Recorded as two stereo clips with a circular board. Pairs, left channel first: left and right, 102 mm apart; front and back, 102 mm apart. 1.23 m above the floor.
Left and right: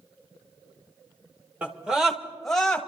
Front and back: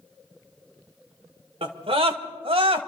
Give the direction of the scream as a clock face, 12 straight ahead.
6 o'clock.